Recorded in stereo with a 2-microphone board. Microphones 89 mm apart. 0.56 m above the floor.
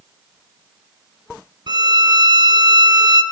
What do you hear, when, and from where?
1.7 s a violin: 55° right (ahead or behind), 0.6 m